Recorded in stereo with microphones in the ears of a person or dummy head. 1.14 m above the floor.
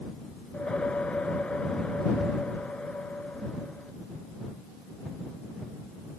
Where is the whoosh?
10° left (ahead or behind).